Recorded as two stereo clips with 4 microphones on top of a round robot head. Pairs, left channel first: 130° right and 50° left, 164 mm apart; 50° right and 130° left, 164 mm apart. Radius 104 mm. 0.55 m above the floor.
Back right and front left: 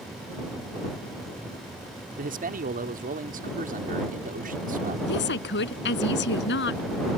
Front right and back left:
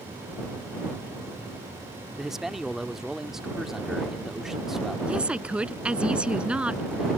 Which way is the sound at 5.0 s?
145° right.